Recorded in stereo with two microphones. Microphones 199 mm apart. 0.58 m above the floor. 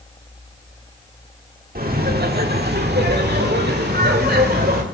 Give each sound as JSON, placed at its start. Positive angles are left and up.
{"t": 1.8, "sound": "laughter", "side_deg": -50, "distance_m": 1.6}